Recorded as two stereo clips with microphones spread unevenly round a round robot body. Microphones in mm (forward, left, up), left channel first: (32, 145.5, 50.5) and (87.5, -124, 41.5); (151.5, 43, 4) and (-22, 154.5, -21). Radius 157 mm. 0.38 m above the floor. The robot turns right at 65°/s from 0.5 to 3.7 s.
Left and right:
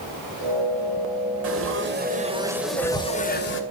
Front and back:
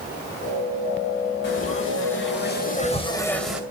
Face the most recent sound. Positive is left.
turn(degrees=75)